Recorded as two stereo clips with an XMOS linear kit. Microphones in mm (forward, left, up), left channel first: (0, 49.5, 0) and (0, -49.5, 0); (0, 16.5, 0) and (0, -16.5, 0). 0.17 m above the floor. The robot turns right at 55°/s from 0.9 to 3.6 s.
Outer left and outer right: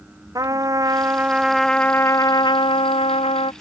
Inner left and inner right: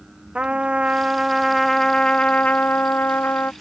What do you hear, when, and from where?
0.3 s a trumpet: 35° right; by 3.5 s 105° left